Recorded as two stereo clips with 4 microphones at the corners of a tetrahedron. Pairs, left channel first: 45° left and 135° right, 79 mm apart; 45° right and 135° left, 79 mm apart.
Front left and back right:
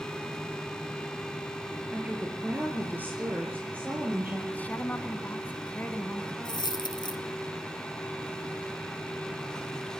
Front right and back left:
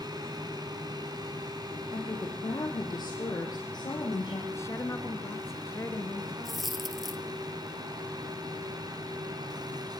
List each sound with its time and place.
1.9 s a woman speaking: 65° right, 4 m; by 4.4 s 70° right, 6.5 m
4.5 s a woman speaking: 15° right, 2 m
6.5 s a dropped coin: 45° left, 1.5 m